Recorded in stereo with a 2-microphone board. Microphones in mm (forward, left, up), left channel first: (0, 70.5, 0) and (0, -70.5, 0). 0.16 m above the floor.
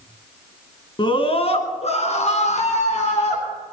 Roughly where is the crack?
No crack in this recording.